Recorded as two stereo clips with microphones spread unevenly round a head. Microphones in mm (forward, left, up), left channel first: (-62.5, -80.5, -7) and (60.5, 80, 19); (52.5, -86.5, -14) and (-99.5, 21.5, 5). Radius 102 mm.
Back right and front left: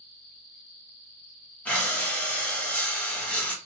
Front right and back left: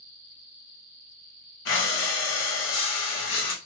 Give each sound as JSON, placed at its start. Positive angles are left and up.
{"t": 1.6, "sound": "breathing", "azimuth_deg": -45, "distance_m": 0.8}